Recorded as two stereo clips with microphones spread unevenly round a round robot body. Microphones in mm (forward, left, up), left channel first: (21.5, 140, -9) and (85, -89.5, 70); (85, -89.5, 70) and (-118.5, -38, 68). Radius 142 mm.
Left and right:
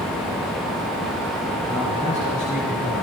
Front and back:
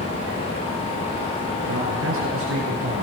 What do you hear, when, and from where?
1.7 s a man speaking: straight behind, 6.5 m; by 3.0 s 175° left, 5.5 m